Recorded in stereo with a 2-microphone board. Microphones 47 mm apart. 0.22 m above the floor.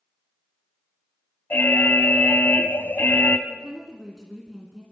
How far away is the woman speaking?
About 2.5 m.